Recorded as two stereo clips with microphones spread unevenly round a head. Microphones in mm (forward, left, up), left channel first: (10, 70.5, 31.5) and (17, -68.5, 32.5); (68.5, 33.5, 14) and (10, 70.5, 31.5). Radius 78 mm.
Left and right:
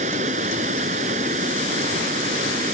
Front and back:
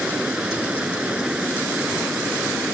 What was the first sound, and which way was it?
Running water, 130° right.